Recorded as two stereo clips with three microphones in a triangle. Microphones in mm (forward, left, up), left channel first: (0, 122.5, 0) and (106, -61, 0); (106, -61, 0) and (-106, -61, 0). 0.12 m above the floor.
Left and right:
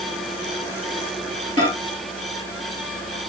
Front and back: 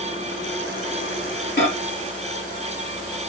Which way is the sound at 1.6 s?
5° right.